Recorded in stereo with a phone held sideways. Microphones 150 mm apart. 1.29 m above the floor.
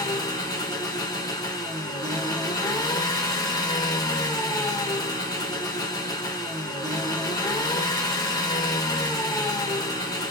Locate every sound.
0.0 s an engine running: 25° left (ahead or behind), 0.8 m